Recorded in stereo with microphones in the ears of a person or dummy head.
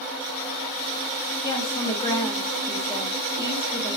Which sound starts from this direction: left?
A woman speaking, at 1.4 s.